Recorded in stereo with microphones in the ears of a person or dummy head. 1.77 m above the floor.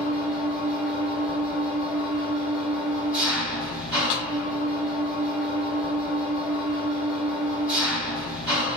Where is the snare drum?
60° left (ahead or behind), 0.8 m.